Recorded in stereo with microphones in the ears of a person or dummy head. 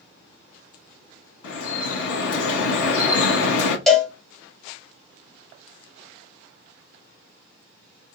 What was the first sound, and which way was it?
Dripping, 80° left.